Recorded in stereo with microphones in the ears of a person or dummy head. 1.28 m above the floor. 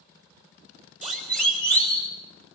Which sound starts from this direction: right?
A siren, at 1.0 s.